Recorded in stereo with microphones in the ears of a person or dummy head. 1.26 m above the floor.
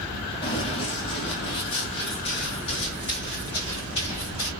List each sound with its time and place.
0.4 s running footsteps: 20° left (ahead or behind), 1.7 m; by 4.5 s 25° left (ahead or behind), 4 m